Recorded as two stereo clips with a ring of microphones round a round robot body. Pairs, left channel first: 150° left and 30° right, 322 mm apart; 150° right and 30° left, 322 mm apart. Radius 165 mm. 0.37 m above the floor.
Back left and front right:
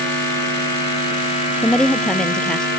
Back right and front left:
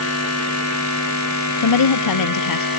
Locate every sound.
1.6 s a woman speaking: 125° right